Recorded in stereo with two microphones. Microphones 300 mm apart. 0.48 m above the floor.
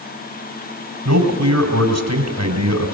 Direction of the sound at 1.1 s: 65° right (ahead or behind).